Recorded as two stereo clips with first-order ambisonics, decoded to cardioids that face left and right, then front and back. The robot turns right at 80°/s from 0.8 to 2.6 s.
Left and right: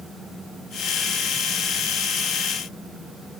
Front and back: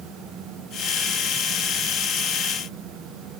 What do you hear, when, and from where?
Only background noise.